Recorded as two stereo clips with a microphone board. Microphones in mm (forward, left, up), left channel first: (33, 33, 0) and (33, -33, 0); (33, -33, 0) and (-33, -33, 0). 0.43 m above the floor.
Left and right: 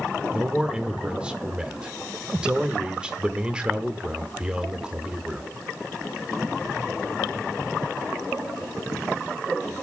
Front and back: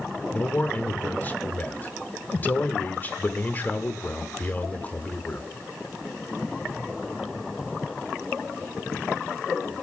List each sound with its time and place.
0.3 s a man speaking: 30° right, 0.8 m